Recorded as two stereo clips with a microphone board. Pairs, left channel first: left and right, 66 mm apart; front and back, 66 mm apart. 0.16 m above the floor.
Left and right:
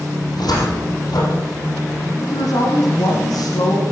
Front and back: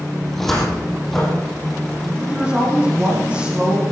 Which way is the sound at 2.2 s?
105° left.